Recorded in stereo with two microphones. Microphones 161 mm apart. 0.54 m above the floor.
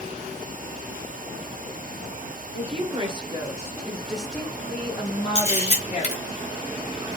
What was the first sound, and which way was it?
A woman speaking, 40° right (ahead or behind).